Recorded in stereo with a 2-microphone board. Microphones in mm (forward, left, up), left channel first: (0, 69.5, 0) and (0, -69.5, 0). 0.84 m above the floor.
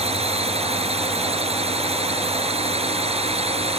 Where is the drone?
45° right (ahead or behind).